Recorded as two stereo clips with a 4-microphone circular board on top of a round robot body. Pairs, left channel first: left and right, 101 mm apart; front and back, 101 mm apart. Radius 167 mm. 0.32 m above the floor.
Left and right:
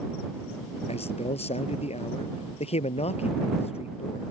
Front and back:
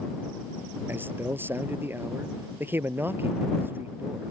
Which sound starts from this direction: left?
A man speaking, at 0.9 s.